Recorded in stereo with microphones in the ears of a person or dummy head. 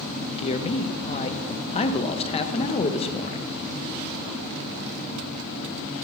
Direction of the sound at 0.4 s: 30° left (ahead or behind).